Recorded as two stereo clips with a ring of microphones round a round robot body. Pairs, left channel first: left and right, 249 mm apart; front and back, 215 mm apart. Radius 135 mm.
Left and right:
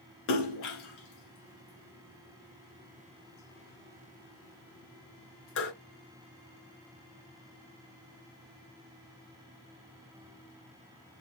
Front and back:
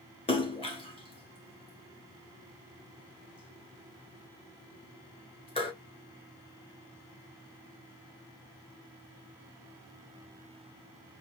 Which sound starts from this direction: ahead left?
A splash, at 0.3 s.